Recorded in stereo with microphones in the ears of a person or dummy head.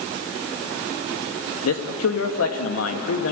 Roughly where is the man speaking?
Left.